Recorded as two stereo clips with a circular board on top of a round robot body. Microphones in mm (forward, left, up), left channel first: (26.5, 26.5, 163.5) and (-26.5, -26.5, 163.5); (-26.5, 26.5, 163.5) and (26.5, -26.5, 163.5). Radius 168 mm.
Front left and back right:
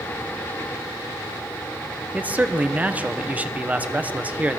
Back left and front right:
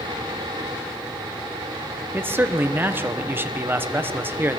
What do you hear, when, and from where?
2.1 s a man speaking: 80° right, 0.9 m